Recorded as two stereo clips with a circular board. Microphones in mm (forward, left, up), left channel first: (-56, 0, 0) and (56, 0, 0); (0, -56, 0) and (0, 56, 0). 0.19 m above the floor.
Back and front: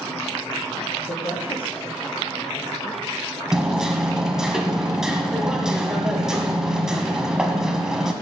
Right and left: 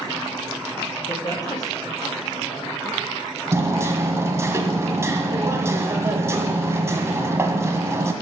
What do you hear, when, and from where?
1.1 s a woman speaking: 145° right, 4.5 m
3.5 s hammering: 75° left, 1.4 m